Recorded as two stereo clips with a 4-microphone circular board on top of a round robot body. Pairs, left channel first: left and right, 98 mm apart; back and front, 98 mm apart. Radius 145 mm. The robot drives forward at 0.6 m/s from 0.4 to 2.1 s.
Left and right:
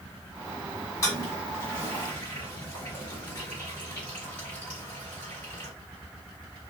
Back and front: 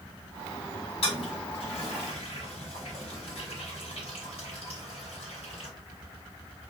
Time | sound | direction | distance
1.0 | a toilet flushing | 150° left | 1.3 m